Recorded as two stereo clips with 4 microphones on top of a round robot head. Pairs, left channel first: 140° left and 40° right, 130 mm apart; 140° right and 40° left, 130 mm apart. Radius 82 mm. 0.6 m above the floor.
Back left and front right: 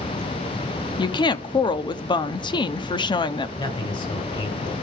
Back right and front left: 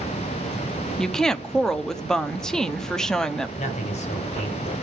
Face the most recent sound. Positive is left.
turn(degrees=-170)